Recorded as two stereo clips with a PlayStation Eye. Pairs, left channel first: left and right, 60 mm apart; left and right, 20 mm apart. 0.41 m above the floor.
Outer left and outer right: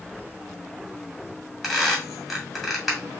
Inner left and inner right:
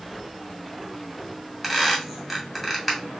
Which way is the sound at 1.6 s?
Centre (ahead or behind).